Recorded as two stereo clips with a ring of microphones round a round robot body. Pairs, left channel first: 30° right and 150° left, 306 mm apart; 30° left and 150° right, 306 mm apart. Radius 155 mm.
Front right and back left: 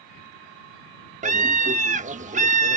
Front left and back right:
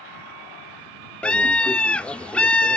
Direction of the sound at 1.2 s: 110° left.